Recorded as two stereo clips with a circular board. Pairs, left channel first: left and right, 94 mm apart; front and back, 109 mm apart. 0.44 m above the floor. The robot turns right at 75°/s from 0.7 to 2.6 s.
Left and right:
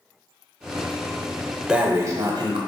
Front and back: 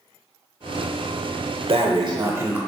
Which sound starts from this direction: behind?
Breathing, at 1.7 s.